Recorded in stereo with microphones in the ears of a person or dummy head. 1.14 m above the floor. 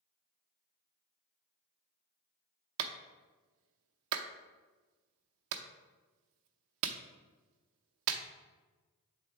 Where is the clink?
No clink in this recording.